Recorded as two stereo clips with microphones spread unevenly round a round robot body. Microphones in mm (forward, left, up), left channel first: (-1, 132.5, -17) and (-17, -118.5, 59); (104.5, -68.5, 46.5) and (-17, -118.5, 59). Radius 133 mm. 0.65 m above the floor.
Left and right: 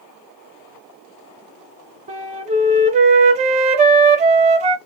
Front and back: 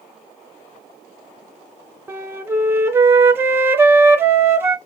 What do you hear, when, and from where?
2.1 s a flute: 100° right, 0.5 m